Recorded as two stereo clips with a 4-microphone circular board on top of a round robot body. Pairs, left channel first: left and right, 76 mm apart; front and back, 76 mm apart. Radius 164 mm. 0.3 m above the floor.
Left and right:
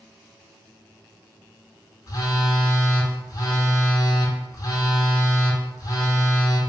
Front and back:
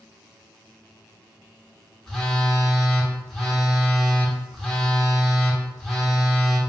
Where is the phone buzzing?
85° left, 1.1 m.